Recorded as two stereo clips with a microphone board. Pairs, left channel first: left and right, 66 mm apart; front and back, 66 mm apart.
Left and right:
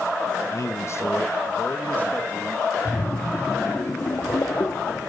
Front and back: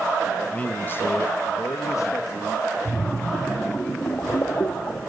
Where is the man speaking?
65° left, 1.2 m; by 2.7 s 20° left, 2 m.